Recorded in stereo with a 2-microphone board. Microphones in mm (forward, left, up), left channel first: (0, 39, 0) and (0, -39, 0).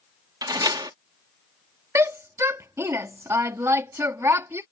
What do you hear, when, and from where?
0.4 s a door slam: 60° right (ahead or behind)
1.9 s a shout: 35° right (ahead or behind)